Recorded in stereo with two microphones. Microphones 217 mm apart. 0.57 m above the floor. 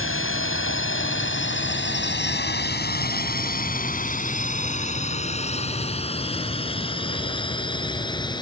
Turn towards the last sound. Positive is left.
turn(degrees=20)  # may be behind; listen again after turning